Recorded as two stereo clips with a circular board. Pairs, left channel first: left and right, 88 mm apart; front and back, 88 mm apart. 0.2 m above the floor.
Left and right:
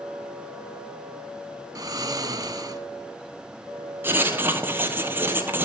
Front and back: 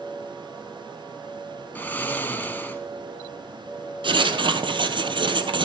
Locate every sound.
1.8 s snoring: 65° right, 0.7 m
4.0 s writing: 155° right, 0.8 m